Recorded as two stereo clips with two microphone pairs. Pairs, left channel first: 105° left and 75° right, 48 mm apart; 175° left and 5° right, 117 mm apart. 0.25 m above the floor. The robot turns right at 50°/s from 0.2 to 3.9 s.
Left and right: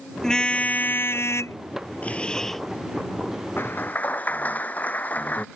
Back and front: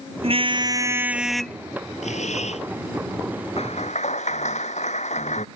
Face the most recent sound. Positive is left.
turn(degrees=160)